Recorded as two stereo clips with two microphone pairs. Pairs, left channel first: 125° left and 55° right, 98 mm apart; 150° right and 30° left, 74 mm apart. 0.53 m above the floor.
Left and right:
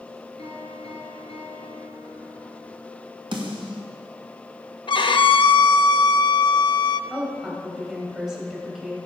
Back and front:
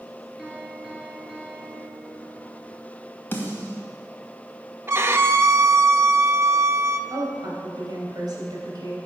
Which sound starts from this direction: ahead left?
A woman speaking, at 7.1 s.